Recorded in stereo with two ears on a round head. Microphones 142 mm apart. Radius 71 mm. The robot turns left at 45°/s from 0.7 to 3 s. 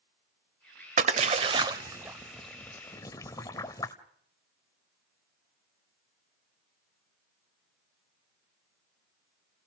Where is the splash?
50° right (ahead or behind), 1.2 m; by 4.0 s 20° left (ahead or behind), 1.2 m.